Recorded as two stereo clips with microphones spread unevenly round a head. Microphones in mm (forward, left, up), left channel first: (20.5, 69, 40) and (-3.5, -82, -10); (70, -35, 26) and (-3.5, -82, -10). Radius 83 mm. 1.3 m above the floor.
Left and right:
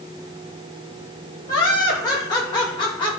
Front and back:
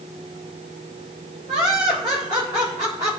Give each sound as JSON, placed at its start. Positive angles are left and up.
{"t": 1.5, "sound": "laughter", "azimuth_deg": 150, "distance_m": 6.0}